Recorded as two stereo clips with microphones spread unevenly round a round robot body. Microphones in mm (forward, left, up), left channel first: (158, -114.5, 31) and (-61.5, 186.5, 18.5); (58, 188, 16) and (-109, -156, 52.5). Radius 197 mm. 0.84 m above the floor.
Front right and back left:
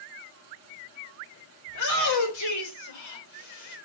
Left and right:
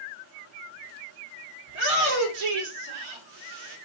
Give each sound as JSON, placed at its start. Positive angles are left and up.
{"t": 1.7, "sound": "a shout", "azimuth_deg": -105, "distance_m": 3.5}